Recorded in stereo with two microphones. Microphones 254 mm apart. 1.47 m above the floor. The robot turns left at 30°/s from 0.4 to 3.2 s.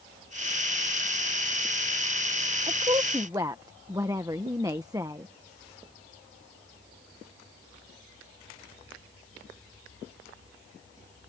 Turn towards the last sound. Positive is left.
turn(degrees=-15)  # may be behind; listen again after turning